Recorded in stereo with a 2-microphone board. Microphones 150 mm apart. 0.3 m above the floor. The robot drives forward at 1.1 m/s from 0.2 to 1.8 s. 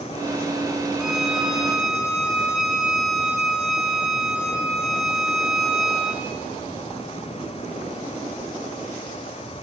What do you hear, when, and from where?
1.0 s a violin: 5° right (ahead or behind), 1.8 m; by 6.2 s centre (ahead or behind), 2.5 m